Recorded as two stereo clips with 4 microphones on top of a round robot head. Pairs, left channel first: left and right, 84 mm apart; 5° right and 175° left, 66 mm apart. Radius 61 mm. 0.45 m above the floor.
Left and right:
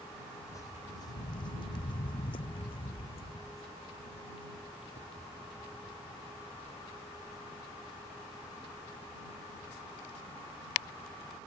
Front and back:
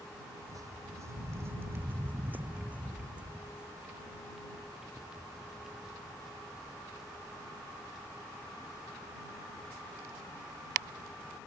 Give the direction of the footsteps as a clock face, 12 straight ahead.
7 o'clock.